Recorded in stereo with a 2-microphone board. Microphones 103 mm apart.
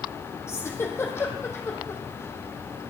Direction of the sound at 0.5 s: 25° left (ahead or behind).